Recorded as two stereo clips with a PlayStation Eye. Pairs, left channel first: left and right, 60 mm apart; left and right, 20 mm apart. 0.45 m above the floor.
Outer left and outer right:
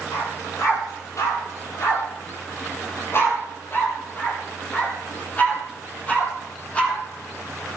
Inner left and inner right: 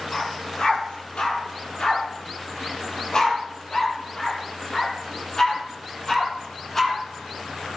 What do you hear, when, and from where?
0.1 s a dog barking: 60° left (ahead or behind), 4.5 m; by 7.0 s 20° left (ahead or behind), 6 m